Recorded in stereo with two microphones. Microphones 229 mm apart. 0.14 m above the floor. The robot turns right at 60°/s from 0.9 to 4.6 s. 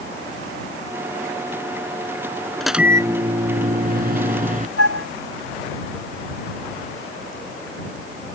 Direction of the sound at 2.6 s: 175° left.